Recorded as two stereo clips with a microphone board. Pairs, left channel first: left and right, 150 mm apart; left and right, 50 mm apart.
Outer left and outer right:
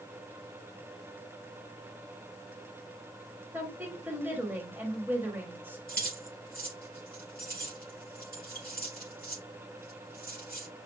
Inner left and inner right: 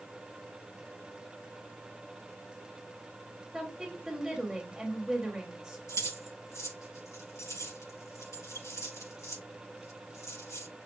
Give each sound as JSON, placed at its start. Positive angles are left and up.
{"t": 3.5, "sound": "a woman speaking", "side_deg": -10, "distance_m": 1.4}
{"t": 5.9, "sound": "keys jangling", "side_deg": 80, "distance_m": 4.5}